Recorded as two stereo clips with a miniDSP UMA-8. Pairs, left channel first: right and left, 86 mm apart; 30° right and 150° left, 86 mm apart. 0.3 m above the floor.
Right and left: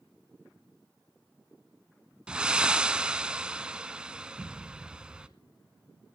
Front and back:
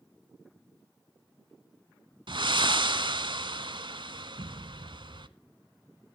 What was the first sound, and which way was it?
Breathing, 170° left.